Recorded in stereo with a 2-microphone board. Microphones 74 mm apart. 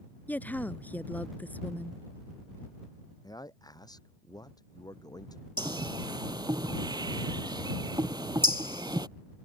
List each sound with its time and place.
0.3 s a woman speaking: 25° left (ahead or behind)
3.2 s a man speaking: 60° left (ahead or behind)
5.6 s a bird: 70° right (ahead or behind)